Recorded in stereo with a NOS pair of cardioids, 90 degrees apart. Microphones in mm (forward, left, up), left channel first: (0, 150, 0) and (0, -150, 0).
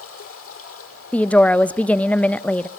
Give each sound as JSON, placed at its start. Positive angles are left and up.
{"t": 0.0, "sound": "running water", "azimuth_deg": 50, "distance_m": 6.5}
{"t": 1.1, "sound": "a woman speaking", "azimuth_deg": 5, "distance_m": 0.7}